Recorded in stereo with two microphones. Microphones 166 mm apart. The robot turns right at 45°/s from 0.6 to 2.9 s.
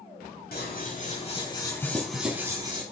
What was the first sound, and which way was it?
Scissors, 110° left.